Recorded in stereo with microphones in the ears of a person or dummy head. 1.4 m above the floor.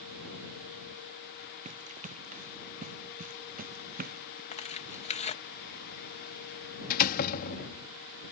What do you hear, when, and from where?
1.6 s running footsteps: 40° right (ahead or behind); by 4.4 s 50° right (ahead or behind)
4.5 s tearing paper: 40° left (ahead or behind)
6.9 s a door slam: 55° left (ahead or behind)